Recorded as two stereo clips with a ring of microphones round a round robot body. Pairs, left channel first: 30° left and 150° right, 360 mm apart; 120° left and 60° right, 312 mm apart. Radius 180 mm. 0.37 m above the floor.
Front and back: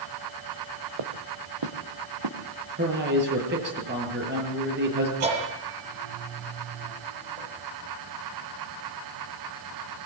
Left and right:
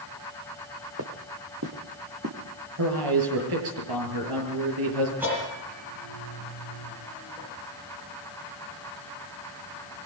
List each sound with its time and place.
1.0 s footsteps: 115° right, 2.5 m; by 2.4 s 120° right, 3.5 m
2.8 s a man speaking: 90° right, 7 m
5.2 s a bell: 145° right, 8.5 m